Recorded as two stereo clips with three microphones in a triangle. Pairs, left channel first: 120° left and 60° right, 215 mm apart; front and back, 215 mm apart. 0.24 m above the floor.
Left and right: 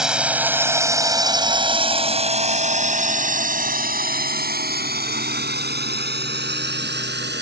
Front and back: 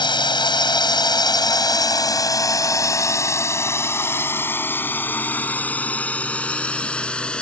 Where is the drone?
20° left; by 7.4 s 85° right.